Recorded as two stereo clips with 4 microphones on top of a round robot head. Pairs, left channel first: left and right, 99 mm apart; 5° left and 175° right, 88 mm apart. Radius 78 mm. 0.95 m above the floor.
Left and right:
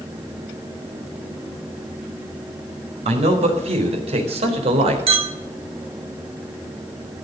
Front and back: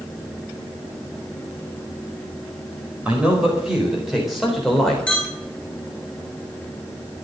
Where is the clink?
75° right, 3 m.